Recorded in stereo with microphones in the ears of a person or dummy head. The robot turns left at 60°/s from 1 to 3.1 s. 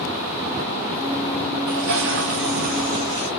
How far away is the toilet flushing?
About 5 m.